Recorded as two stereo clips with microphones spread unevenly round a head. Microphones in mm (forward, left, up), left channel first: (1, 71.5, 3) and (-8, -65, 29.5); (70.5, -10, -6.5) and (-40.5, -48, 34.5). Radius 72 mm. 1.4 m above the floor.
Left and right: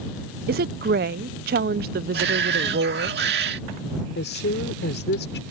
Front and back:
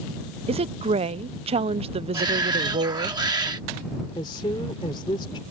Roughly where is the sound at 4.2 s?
Left.